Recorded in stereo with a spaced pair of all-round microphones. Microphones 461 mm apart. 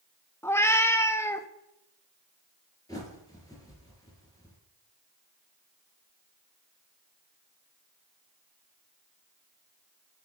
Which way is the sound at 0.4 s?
5° left (ahead or behind).